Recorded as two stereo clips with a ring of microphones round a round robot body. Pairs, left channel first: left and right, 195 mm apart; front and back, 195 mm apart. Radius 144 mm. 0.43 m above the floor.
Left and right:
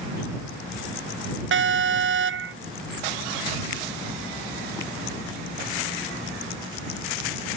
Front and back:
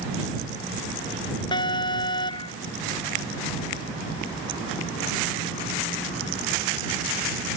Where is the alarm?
75° right.